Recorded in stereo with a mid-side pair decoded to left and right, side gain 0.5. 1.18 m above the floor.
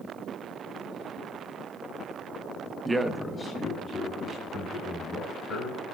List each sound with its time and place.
2.9 s a man speaking: 25° right, 0.7 m; by 5.8 s 60° left, 4 m